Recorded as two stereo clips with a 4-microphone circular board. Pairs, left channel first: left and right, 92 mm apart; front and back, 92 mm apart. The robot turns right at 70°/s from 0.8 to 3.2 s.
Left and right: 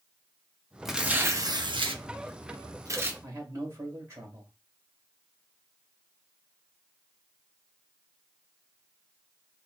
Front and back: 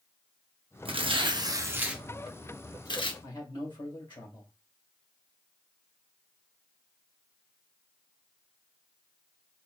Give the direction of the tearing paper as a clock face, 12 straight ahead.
6 o'clock.